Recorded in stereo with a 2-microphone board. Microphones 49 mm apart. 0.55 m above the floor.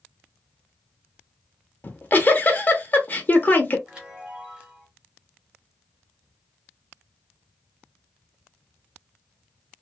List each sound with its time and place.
1.8 s a giggle: 35° left (ahead or behind), 0.7 m
3.9 s a chime: 15° right (ahead or behind), 1.4 m